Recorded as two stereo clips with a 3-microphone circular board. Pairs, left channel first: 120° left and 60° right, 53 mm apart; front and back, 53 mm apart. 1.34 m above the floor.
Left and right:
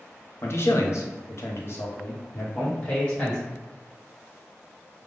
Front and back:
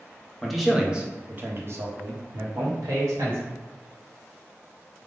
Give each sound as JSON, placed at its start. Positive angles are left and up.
{"t": 0.4, "sound": "a man speaking", "azimuth_deg": 85, "distance_m": 0.9}